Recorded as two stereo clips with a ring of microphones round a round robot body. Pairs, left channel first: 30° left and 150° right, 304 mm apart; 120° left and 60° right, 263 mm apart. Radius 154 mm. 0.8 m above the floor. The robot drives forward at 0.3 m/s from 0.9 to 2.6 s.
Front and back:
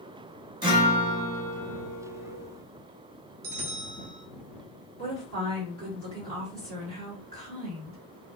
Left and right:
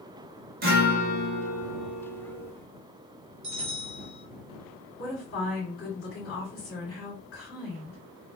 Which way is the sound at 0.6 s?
85° right.